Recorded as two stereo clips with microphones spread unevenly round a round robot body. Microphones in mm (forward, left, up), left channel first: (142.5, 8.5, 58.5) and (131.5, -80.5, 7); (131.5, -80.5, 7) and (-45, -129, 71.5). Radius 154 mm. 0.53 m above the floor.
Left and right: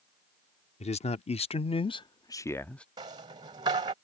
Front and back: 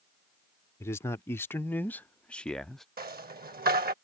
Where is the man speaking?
75° left; by 2.9 s 40° right.